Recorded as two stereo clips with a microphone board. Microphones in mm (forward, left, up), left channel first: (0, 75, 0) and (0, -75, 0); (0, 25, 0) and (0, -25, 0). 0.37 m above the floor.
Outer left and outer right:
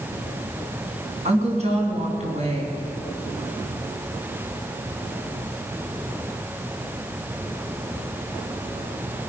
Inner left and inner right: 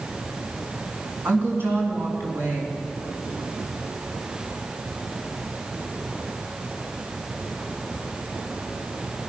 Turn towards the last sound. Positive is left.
turn(degrees=-45)  # may be behind; listen again after turning